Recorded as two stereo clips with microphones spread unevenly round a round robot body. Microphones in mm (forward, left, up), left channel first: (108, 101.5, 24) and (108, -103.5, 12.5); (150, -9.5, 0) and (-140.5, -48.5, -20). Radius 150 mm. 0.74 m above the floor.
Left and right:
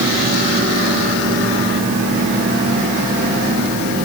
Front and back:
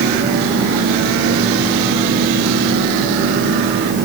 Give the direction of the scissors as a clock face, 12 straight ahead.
No scissors in this recording.